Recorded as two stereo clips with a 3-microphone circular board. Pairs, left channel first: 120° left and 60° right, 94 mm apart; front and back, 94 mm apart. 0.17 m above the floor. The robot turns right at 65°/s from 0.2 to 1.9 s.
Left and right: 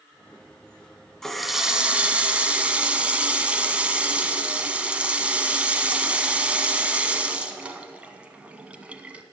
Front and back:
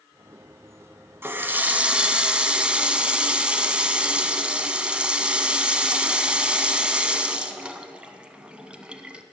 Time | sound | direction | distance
1.2 | a running tap | 160° right | 0.7 m